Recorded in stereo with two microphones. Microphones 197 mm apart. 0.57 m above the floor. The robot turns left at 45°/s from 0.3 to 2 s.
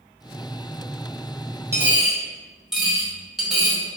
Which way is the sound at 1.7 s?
15° right (ahead or behind).